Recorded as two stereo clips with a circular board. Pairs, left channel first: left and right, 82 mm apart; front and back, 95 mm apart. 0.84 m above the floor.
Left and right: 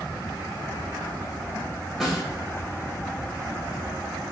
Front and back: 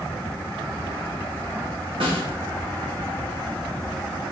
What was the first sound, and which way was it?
A snare drum, 175° right.